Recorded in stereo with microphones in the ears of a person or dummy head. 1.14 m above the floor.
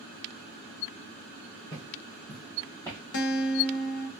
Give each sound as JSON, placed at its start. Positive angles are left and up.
{"t": 1.7, "sound": "footsteps", "side_deg": 20, "distance_m": 1.5}
{"t": 3.1, "sound": "a guitar", "side_deg": 55, "distance_m": 0.7}